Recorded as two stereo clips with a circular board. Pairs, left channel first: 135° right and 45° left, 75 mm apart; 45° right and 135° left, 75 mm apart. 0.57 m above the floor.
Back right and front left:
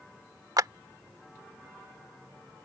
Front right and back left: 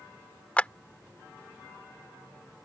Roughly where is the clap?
Ahead left.